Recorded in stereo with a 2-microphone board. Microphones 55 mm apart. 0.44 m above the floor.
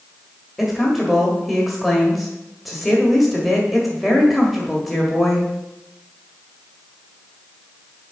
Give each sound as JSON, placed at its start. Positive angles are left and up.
{"t": 0.6, "sound": "a woman speaking", "side_deg": 0, "distance_m": 1.7}